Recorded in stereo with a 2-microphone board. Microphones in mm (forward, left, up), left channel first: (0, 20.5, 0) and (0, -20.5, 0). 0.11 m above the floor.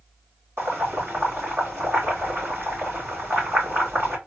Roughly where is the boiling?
Right.